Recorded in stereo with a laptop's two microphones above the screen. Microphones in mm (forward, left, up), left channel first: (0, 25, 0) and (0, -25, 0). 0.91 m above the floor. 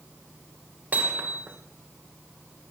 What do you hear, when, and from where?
0.9 s hammering: 40° right (ahead or behind), 1.9 m